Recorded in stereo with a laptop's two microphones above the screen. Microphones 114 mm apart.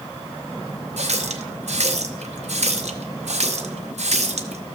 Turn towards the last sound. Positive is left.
turn(degrees=-80)